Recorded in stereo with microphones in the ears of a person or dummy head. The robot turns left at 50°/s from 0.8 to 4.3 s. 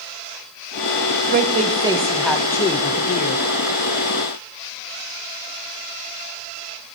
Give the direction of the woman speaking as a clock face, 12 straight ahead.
4 o'clock.